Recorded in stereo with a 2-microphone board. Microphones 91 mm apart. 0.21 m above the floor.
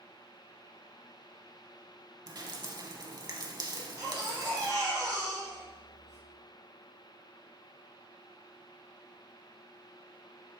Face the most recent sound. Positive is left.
turn(degrees=-35)  # may be behind; listen again after turning